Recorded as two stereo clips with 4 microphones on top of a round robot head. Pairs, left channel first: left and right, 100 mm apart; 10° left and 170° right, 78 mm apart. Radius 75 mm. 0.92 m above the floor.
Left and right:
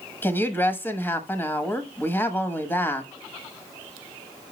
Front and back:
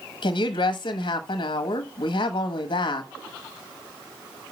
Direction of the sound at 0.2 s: 20° left.